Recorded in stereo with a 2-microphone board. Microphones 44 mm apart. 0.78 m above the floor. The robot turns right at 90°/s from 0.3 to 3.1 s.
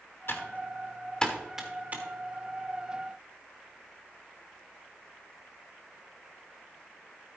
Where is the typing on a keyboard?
55° left (ahead or behind), 1.6 m; by 2.0 s 45° right (ahead or behind), 1.6 m.